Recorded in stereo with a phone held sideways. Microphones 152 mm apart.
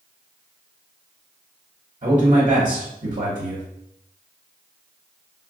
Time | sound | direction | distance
2.0 | a man speaking | 55° right (ahead or behind) | 1.0 m